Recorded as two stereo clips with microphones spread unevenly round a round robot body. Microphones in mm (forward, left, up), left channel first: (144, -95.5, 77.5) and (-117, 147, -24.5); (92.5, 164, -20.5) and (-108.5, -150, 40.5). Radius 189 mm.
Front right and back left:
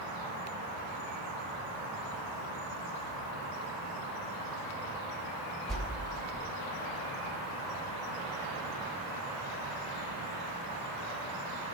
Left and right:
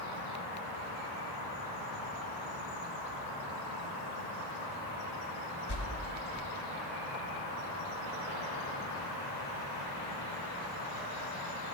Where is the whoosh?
55° left, 1.9 m.